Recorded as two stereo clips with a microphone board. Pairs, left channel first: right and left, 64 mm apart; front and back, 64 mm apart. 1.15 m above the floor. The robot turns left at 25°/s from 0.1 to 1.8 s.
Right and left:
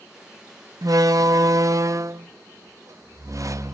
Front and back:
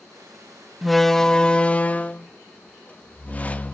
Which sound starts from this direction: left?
A door slam, at 0.8 s.